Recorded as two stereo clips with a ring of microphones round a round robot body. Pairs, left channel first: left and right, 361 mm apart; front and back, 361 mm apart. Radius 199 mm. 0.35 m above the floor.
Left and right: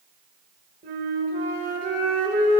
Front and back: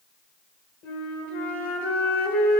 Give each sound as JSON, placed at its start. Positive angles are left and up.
{"t": 0.8, "sound": "a flute", "azimuth_deg": -35, "distance_m": 1.7}